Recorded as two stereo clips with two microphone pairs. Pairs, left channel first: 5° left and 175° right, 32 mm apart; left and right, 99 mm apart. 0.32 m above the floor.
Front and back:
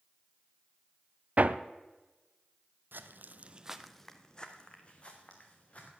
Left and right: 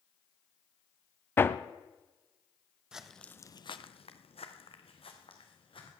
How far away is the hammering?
About 0.5 m.